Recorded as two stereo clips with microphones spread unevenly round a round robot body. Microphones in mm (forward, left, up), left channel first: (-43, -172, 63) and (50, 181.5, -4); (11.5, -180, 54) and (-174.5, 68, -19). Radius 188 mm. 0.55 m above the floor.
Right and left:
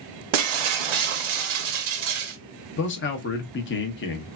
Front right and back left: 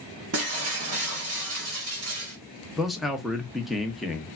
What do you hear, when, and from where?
0.3 s breaking glass: 70° left, 0.7 m
2.8 s a man speaking: 160° right, 0.7 m